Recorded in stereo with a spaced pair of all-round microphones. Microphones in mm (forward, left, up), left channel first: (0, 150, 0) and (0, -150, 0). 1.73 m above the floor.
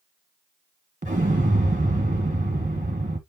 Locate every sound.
1.0 s an explosion: 25° right (ahead or behind), 1.5 m